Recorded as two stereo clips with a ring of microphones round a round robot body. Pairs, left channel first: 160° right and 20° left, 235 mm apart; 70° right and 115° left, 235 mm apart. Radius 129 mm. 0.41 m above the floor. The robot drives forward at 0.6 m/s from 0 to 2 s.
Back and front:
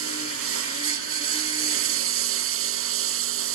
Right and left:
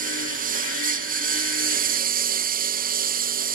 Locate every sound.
0.0 s a lawn mower: 55° left